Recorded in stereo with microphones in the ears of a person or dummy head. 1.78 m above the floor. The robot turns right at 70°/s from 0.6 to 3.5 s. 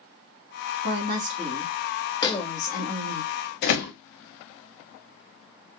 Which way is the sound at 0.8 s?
75° right.